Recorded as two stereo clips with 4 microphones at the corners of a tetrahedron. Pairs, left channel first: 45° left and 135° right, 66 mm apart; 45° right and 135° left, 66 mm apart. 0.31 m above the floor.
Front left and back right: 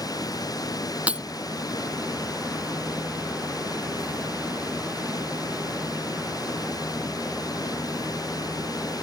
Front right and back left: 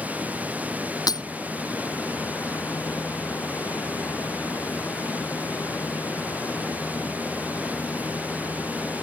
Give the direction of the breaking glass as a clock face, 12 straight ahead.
2 o'clock.